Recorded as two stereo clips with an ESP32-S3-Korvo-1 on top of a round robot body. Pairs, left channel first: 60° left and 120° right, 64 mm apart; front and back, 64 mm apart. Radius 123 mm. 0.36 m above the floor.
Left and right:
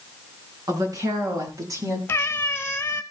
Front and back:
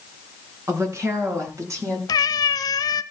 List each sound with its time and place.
0.7 s a woman speaking: 135° right, 4.5 m; by 2.0 s 145° right, 5.5 m
2.1 s a cat meowing: 5° left, 0.9 m